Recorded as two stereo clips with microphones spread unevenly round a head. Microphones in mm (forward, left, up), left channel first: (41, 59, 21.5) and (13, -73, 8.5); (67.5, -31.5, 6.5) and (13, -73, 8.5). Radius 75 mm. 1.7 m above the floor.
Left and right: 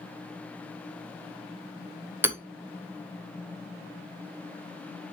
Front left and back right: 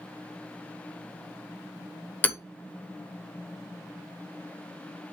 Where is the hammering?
25° right, 1.2 m.